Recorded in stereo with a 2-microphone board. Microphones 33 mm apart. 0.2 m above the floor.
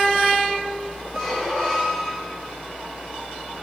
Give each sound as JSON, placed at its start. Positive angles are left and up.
{"t": 1.1, "sound": "a squeak", "side_deg": 0, "distance_m": 2.0}